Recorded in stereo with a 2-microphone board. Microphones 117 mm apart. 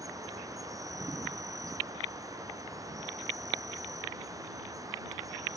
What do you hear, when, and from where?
0.0 s an insect: 30° right (ahead or behind)